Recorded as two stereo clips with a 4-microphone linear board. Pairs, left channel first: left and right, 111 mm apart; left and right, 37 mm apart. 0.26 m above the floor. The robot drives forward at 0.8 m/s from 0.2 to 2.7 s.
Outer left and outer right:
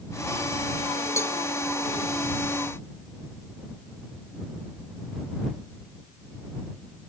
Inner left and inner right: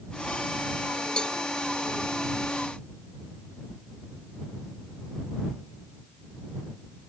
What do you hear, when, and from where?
1.2 s a cowbell: 25° left (ahead or behind), 0.5 m; by 1.4 s 20° left (ahead or behind), 0.6 m